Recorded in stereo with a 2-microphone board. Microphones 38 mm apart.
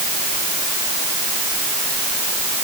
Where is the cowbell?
No cowbell in this recording.